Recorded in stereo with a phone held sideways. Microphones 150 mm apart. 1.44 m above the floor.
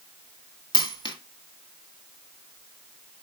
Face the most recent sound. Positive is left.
turn(degrees=35)  # may be behind; listen again after turning